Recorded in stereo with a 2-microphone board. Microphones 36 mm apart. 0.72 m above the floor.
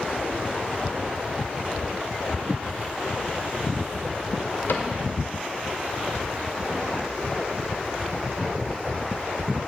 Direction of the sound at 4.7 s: 65° left (ahead or behind).